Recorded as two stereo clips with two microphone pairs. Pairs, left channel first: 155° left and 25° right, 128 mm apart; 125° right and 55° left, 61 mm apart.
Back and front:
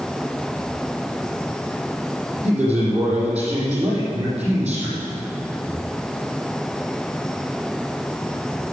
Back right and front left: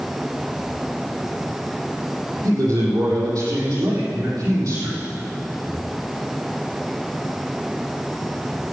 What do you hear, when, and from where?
2.4 s a man speaking: 50° left, 7 m